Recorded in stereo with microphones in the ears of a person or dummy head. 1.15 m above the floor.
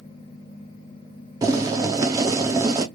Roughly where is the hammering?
No hammering in this recording.